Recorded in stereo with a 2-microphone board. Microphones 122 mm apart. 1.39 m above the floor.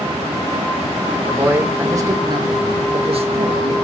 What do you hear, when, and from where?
1.3 s a man speaking: 10° right (ahead or behind), 1.3 m; by 3.7 s 65° right (ahead or behind), 1.8 m